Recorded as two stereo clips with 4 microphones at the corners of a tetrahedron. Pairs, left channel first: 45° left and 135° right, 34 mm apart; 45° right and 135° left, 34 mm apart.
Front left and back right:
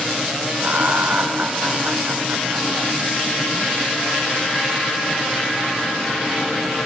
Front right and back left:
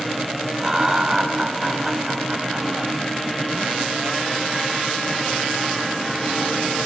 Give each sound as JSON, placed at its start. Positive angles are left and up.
{"t": 0.6, "sound": "laughter", "azimuth_deg": -155, "distance_m": 2.5}